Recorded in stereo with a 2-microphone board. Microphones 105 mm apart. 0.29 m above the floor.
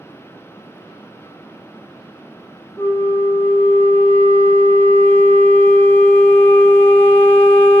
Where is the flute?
25° left (ahead or behind), 0.7 m.